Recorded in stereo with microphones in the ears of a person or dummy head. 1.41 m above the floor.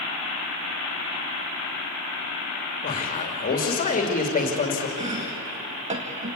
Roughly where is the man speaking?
Left.